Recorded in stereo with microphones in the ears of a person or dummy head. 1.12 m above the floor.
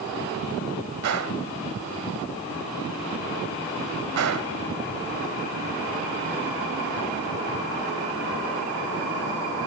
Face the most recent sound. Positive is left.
turn(degrees=-75)  # may be behind; listen again after turning